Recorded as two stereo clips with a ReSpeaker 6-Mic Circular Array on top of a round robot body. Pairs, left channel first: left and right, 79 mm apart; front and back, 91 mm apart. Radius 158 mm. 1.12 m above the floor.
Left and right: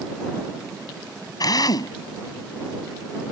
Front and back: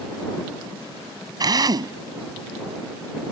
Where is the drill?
130° left.